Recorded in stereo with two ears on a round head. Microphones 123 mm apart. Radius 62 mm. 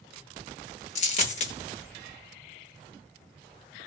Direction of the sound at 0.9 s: 50° left (ahead or behind).